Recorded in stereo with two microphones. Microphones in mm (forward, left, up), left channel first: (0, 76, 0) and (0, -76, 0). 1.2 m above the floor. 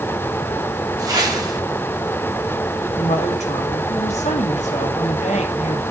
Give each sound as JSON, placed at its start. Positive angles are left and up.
{"t": 1.0, "sound": "a whoosh", "side_deg": -25, "distance_m": 3.5}
{"t": 3.0, "sound": "a woman speaking", "side_deg": 50, "distance_m": 2.5}